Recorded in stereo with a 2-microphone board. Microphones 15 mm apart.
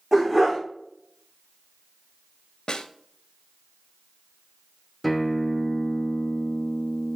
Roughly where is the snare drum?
Left.